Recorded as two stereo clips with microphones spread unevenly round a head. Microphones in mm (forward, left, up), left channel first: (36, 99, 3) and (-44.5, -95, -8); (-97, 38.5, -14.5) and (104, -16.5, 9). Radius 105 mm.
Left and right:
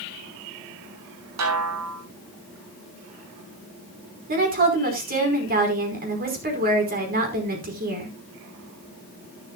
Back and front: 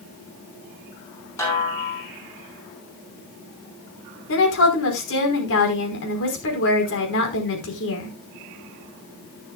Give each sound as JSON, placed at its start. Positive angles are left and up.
{"t": 1.4, "sound": "a snare drum", "azimuth_deg": -115, "distance_m": 6.0}
{"t": 4.3, "sound": "a woman speaking", "azimuth_deg": -160, "distance_m": 5.0}